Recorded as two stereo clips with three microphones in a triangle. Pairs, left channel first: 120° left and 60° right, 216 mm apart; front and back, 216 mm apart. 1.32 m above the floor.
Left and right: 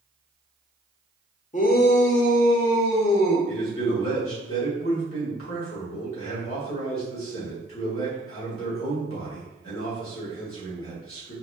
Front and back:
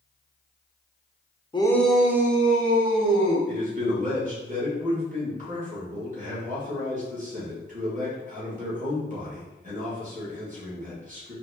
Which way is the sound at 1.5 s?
70° left.